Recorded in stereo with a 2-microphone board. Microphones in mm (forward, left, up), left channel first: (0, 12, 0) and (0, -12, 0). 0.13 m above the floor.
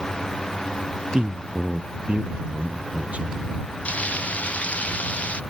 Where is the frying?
80° left.